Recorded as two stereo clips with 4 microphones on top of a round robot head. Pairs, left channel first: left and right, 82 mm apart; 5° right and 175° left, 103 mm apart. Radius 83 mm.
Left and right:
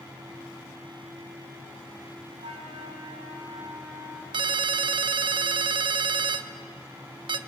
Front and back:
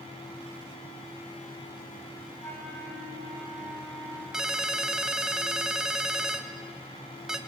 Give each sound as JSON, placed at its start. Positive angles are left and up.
{"t": 2.4, "sound": "a flute", "azimuth_deg": -80, "distance_m": 5.0}
{"t": 4.3, "sound": "a ringtone", "azimuth_deg": -100, "distance_m": 1.0}